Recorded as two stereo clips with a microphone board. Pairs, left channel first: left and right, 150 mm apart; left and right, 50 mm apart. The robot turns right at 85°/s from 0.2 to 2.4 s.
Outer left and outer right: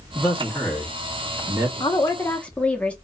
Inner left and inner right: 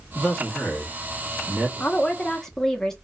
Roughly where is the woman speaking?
Behind left.